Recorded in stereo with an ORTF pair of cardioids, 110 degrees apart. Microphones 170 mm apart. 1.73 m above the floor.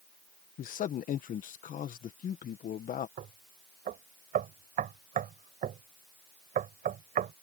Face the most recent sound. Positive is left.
turn(degrees=-55)